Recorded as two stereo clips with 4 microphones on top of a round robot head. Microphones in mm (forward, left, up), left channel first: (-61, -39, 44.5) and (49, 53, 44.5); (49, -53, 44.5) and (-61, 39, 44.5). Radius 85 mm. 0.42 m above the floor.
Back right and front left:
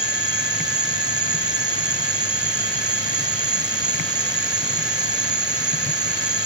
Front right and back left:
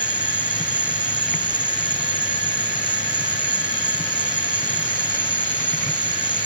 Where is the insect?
80° left.